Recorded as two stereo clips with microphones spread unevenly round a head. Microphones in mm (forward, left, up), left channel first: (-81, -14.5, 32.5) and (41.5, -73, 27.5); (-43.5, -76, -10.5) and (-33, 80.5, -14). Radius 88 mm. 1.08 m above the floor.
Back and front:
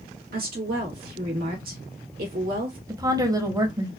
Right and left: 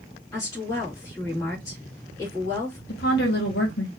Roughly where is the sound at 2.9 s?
Right.